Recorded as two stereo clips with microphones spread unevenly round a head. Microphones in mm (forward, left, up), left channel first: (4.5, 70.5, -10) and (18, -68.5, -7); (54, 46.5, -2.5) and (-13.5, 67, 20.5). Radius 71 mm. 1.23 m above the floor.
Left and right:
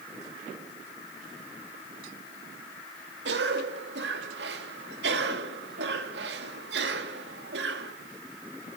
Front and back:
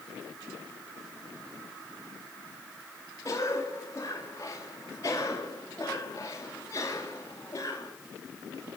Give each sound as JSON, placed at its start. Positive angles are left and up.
{"t": 3.2, "sound": "a cough", "azimuth_deg": -80, "distance_m": 2.5}